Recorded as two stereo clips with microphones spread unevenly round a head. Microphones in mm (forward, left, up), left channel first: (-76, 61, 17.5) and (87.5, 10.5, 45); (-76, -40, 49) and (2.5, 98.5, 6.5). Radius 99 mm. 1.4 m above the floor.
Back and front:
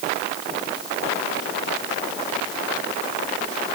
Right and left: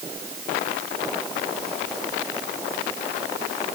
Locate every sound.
Only background noise.